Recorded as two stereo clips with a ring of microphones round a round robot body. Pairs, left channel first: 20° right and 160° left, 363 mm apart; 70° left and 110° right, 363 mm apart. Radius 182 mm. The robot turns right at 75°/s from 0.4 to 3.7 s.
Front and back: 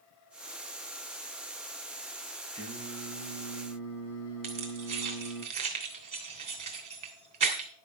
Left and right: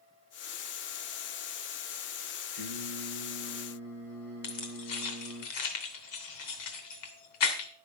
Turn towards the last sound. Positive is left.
turn(degrees=85)